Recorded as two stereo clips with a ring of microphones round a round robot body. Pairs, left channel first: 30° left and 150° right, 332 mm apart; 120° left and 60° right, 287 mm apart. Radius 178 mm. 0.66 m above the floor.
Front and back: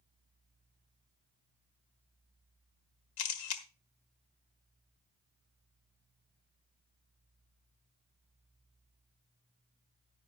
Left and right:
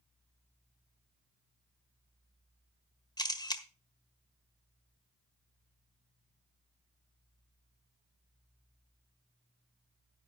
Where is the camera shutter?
45° left, 1.6 m.